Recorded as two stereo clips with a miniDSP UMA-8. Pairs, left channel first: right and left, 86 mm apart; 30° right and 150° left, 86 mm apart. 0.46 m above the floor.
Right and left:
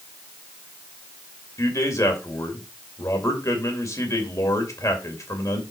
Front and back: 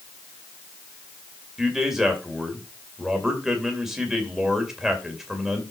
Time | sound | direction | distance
1.6 | a man speaking | 125° right | 2.5 m